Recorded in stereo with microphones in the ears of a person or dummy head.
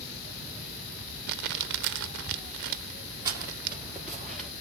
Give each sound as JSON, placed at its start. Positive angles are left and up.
{"t": 1.3, "sound": "crumpling", "side_deg": -60, "distance_m": 0.7}
{"t": 3.2, "sound": "footsteps", "side_deg": -15, "distance_m": 2.0}